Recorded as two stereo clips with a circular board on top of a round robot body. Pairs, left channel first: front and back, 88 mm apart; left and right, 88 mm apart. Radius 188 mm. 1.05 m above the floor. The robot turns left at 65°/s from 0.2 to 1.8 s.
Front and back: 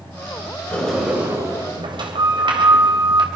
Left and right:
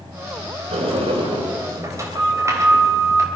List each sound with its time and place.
0.7 s a sliding door: 75° right, 3 m; by 3.3 s 145° right, 3 m